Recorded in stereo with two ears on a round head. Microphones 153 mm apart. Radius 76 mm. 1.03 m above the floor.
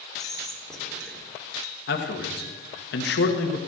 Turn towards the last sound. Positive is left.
turn(degrees=65)  # may be behind; listen again after turning